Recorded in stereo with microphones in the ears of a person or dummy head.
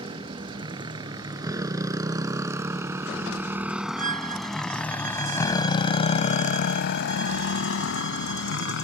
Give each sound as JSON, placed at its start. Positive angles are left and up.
{"t": 0.0, "sound": "a motorcycle", "side_deg": -30}
{"t": 4.0, "sound": "a violin", "side_deg": -50}